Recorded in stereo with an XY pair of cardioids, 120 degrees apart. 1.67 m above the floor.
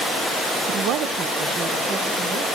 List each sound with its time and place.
0.7 s a woman speaking: 65° right, 0.7 m; by 2.5 s 75° right, 2 m